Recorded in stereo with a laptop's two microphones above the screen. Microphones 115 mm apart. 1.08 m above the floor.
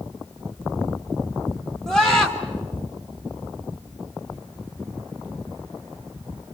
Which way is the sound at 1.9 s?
5° left (ahead or behind).